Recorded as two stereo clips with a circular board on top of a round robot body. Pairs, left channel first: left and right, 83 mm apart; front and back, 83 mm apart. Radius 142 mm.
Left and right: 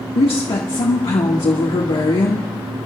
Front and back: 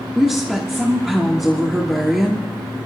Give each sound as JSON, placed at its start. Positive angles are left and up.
{"t": 0.1, "sound": "a woman speaking", "azimuth_deg": 95, "distance_m": 1.6}